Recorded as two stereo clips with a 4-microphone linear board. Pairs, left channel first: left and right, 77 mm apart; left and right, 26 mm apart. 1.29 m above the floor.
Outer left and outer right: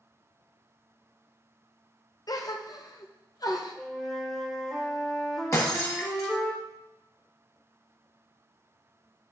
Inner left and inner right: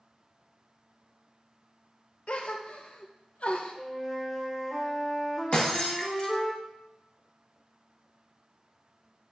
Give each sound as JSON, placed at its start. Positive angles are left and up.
{"t": 2.3, "sound": "a gasp", "side_deg": 55, "distance_m": 0.6}
{"t": 3.8, "sound": "a flute", "side_deg": 5, "distance_m": 1.3}
{"t": 5.5, "sound": "breaking glass", "side_deg": 45, "distance_m": 1.3}